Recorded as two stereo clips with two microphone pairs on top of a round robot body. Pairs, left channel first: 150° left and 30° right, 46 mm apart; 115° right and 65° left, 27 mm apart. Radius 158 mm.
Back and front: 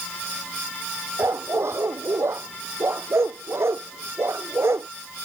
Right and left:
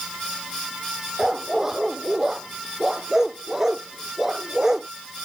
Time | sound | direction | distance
1.2 | a dog barking | 10° right | ?